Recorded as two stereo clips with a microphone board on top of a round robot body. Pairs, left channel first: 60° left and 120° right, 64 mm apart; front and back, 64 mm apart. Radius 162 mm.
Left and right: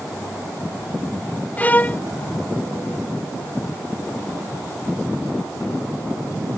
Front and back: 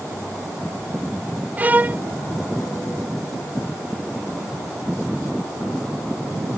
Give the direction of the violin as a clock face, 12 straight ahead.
8 o'clock.